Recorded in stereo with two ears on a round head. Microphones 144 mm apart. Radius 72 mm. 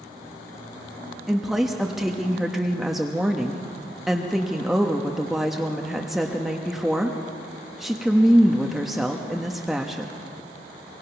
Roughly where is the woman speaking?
Centre.